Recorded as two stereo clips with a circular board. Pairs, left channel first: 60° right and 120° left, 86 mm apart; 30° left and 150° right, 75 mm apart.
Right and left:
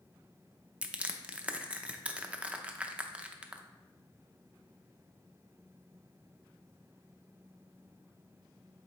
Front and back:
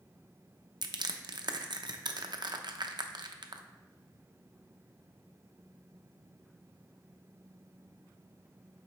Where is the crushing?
165° right, 0.6 m.